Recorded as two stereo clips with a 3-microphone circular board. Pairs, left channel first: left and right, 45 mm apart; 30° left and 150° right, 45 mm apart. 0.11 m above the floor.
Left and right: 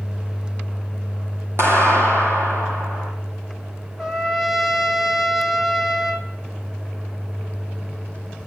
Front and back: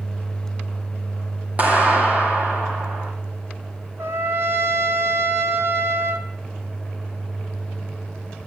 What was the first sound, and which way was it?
A clap, 95° right.